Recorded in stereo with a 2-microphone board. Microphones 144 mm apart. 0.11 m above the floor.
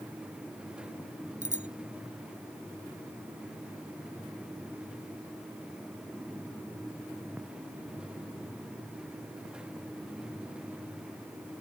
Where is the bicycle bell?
55° right (ahead or behind).